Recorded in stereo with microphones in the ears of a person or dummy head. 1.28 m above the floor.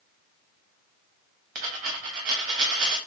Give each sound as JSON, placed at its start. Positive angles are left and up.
{"t": 1.6, "sound": "a dropped coin", "side_deg": -40, "distance_m": 1.0}